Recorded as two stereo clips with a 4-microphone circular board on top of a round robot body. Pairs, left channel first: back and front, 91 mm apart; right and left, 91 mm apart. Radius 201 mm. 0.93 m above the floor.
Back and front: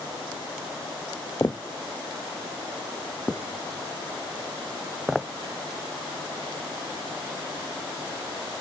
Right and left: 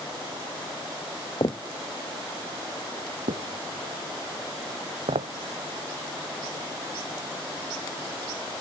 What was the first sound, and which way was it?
Footsteps, 120° right.